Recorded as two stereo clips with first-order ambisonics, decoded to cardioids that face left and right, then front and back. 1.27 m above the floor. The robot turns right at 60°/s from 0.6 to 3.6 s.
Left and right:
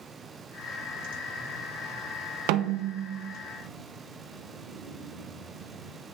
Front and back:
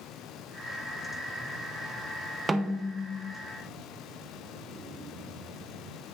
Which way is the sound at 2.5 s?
100° right.